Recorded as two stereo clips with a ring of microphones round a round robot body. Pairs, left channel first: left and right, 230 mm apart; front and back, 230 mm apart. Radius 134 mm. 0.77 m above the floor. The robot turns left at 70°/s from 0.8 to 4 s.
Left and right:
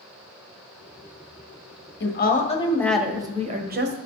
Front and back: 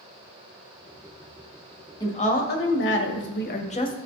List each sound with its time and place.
2.0 s a woman speaking: 70° left, 1.4 m; by 4.0 s 70° right, 1.4 m